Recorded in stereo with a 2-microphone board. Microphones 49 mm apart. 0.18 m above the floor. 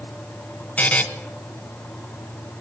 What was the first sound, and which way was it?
A buzzer, 30° left (ahead or behind).